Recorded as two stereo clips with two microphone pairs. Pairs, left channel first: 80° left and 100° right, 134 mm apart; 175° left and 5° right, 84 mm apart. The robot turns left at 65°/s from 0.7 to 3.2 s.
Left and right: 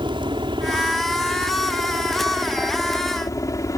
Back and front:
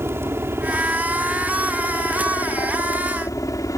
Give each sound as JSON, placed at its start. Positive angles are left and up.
{"t": 0.0, "sound": "a helicopter", "azimuth_deg": -60}